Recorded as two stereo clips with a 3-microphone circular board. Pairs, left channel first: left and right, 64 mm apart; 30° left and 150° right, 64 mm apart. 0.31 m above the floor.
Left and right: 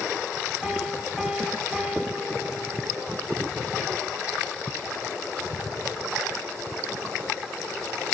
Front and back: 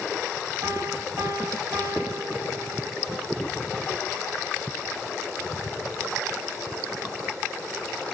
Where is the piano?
175° right, 2 m.